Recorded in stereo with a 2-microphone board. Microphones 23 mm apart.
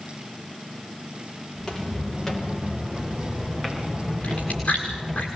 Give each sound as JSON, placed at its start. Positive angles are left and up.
{"t": 1.6, "sound": "footsteps", "side_deg": 20, "distance_m": 8.0}
{"t": 4.2, "sound": "chewing", "side_deg": 60, "distance_m": 6.0}